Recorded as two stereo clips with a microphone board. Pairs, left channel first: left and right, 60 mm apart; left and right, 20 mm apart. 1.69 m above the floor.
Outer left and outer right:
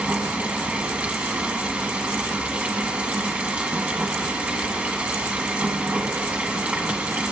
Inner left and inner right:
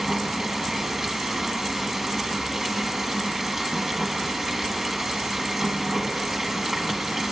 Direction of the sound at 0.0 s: 20° right (ahead or behind).